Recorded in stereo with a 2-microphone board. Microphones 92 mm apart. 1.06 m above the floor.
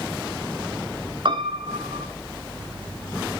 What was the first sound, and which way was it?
A piano, 55° right (ahead or behind).